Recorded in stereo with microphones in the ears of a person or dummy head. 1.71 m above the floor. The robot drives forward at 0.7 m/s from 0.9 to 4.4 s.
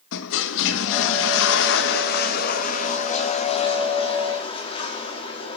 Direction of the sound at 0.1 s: 60° left (ahead or behind).